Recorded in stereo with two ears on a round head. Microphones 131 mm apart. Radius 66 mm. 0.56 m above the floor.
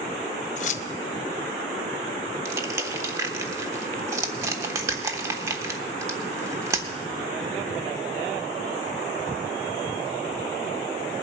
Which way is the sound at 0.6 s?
55° left (ahead or behind).